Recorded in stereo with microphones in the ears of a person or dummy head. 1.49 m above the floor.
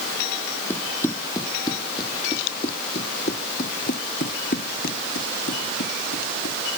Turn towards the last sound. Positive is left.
turn(degrees=65)  # may be behind; listen again after turning